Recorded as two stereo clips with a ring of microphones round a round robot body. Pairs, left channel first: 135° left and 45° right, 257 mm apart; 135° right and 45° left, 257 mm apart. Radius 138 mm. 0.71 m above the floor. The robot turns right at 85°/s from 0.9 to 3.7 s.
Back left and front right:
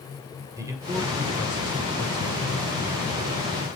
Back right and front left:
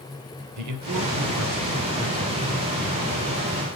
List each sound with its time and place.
0.6 s a man speaking: 35° left, 2.5 m; by 3.8 s 90° right, 2.5 m